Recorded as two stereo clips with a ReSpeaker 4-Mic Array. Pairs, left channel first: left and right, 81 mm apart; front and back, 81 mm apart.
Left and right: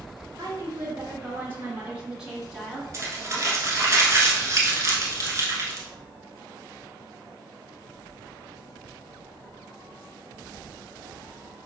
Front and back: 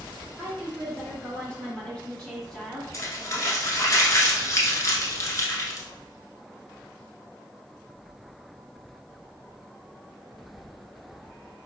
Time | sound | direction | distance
0.4 | a woman speaking | 60° right | 2 m
2.9 | crumpling | 45° right | 1.2 m